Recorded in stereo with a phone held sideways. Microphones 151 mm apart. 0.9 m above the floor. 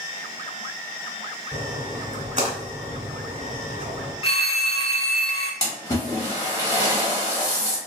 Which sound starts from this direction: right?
A splash, at 1.5 s.